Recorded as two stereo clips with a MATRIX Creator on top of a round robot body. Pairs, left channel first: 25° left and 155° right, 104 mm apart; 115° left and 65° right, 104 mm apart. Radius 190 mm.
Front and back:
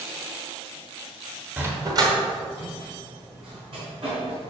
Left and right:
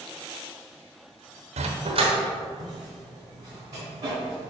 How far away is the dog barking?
About 0.7 m.